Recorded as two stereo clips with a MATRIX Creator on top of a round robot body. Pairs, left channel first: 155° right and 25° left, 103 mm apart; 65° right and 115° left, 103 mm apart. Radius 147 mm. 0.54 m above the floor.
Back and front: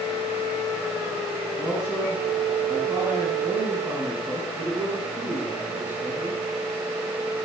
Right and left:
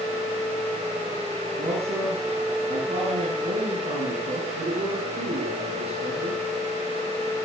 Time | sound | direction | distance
1.6 | a man speaking | 95° left | 7.5 m